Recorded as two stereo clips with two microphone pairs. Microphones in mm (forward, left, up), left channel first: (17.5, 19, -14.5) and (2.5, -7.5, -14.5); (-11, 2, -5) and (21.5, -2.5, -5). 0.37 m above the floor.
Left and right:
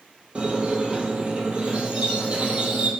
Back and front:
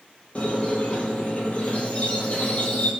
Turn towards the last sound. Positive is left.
turn(degrees=-155)